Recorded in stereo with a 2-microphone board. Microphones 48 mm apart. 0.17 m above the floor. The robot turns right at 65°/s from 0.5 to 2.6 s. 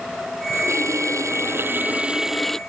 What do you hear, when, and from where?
0.5 s a running tap: 125° right; by 2.6 s 10° left